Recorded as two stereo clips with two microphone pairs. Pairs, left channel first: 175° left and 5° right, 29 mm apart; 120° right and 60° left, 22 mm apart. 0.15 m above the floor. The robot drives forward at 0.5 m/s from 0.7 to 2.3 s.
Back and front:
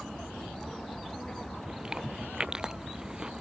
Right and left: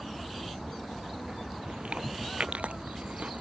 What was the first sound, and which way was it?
Chewing, 60° left.